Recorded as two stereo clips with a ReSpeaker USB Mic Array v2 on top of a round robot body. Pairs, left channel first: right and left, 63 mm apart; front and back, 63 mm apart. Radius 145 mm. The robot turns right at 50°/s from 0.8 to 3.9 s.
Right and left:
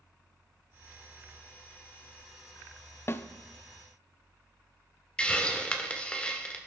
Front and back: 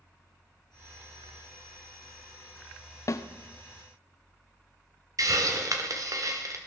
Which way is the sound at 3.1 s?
40° right.